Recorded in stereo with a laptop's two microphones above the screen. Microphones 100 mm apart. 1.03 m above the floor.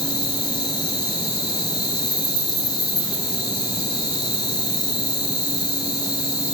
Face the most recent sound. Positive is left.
turn(degrees=45)  # may be behind; listen again after turning